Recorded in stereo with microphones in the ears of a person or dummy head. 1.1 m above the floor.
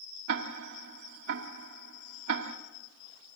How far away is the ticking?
About 1.7 m.